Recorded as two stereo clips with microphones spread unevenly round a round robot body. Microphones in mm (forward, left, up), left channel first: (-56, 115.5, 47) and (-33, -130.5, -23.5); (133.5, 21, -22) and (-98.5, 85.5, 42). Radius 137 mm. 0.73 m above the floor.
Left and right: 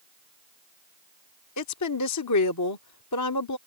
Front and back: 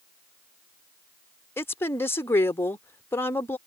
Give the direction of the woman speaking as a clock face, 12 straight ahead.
10 o'clock.